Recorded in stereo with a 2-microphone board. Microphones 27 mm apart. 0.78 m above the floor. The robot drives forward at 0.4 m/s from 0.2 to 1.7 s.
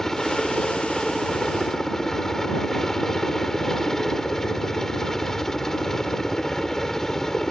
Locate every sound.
0.0 s a helicopter: 15° left (ahead or behind)